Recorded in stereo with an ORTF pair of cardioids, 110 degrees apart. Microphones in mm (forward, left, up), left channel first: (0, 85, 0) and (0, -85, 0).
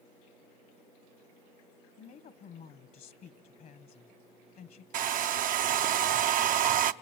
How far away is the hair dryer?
About 0.7 m.